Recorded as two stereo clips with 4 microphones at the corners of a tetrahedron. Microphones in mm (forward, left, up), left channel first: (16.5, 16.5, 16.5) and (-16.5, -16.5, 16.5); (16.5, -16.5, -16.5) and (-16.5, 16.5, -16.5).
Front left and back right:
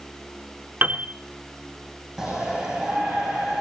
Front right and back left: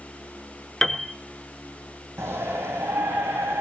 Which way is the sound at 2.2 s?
155° left.